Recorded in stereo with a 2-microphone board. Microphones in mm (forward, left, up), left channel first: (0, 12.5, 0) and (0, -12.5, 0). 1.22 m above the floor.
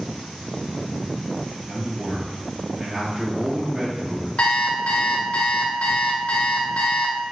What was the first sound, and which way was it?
A man speaking, 25° right (ahead or behind).